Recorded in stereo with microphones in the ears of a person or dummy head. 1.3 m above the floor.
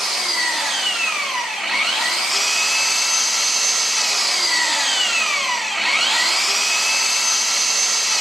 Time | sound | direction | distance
0.0 | an engine running | 5° right (ahead or behind) | 1.6 m